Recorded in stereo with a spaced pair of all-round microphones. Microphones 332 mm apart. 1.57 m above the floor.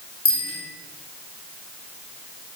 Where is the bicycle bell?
50° left (ahead or behind), 7 m.